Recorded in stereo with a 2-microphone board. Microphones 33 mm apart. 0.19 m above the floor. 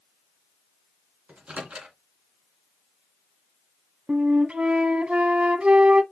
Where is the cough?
No cough in this recording.